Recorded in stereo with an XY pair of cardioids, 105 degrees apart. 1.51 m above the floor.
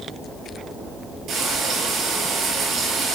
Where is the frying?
65° right, 5.5 m.